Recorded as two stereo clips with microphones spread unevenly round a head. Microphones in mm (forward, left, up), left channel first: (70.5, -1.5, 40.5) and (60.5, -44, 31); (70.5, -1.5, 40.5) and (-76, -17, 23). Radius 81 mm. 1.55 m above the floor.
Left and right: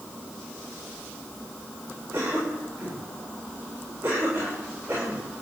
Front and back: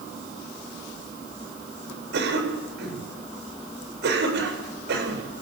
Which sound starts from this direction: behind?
A cough, at 2.1 s.